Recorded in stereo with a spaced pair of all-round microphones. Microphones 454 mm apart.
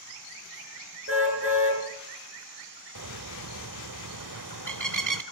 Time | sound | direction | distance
1.1 | a car horn | 30° right (ahead or behind) | 7.5 m
3.0 | a bird | 40° right (ahead or behind) | 0.9 m